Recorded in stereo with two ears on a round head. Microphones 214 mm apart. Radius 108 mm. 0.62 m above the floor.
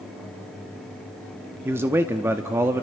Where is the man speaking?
10° right (ahead or behind), 0.9 m.